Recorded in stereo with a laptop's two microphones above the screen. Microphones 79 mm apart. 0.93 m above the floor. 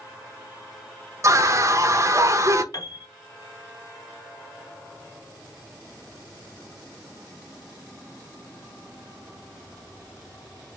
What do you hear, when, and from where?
1.2 s a scream: 40° right (ahead or behind), 0.9 m
2.7 s a piano: 45° left (ahead or behind), 1.3 m